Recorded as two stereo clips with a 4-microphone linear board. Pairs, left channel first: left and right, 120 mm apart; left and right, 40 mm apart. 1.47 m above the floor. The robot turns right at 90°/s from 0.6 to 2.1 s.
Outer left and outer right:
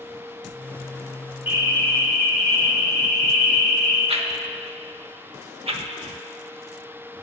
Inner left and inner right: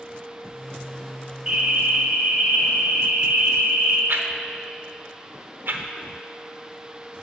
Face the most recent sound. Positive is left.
turn(degrees=-55)  # may be behind; listen again after turning